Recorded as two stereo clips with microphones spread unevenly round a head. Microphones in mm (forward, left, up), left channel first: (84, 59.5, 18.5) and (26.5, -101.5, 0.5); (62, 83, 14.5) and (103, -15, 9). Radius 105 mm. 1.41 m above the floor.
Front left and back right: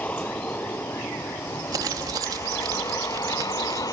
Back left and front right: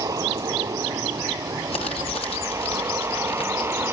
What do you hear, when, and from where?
0.0 s a vehicle: 10° right; by 3.9 s straight ahead
1.7 s crumpling: 175° left